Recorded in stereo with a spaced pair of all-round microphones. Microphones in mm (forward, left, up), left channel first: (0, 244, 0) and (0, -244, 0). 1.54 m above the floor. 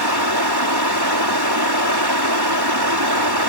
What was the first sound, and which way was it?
Running water, 50° right (ahead or behind).